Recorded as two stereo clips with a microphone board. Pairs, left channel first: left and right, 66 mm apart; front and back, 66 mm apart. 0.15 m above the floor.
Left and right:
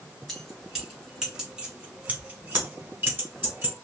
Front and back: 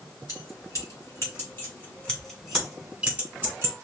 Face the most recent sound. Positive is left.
turn(degrees=-135)